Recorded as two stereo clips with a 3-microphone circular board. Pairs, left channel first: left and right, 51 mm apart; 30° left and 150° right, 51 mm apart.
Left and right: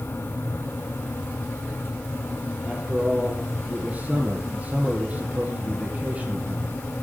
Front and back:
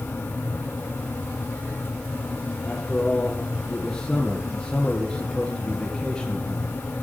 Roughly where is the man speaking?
Ahead right.